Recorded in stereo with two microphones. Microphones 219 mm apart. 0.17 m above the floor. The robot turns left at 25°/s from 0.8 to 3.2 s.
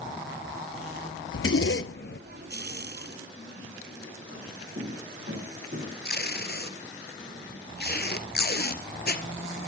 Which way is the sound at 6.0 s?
50° left (ahead or behind).